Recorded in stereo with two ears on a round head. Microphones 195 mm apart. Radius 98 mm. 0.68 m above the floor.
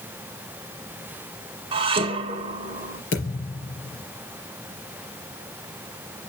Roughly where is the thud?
Left.